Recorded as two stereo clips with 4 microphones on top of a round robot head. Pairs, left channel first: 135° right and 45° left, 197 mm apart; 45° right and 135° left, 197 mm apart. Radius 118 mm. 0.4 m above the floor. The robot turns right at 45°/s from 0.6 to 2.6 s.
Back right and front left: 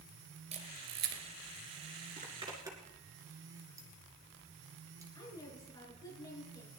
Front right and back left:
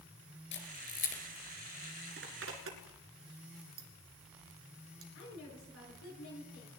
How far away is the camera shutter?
About 2.5 m.